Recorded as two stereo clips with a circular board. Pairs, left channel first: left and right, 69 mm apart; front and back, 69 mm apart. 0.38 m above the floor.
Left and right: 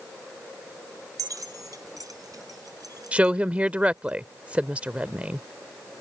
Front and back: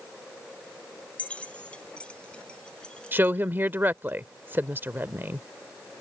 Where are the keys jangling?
70° right; by 4.1 s 80° right.